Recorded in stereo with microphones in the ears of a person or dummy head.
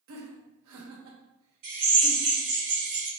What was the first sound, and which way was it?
Laughter, 75° right (ahead or behind).